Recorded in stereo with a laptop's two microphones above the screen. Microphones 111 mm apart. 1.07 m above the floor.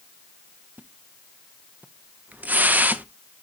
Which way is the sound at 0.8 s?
15° right (ahead or behind).